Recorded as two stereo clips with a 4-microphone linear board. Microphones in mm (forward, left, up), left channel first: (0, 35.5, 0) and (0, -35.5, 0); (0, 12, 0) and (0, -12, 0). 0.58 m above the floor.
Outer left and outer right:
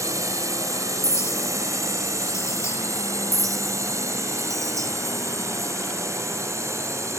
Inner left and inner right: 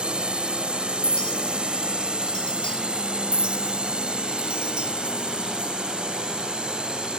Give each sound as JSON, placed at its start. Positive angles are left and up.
{"t": 0.0, "sound": "a drone", "side_deg": -50}
{"t": 1.0, "sound": "a clink", "side_deg": 45}
{"t": 3.3, "sound": "a clink", "side_deg": -50}